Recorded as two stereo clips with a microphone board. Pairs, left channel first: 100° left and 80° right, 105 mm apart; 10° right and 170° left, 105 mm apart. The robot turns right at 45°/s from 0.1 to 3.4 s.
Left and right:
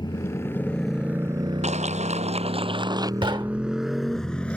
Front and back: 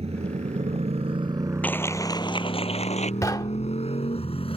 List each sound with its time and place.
0.0 s a motorcycle: 145° left; by 4.6 s 20° left
1.6 s a clap: 90° right; by 3.1 s 20° right
3.2 s knocking: 65° right; by 3.8 s 55° right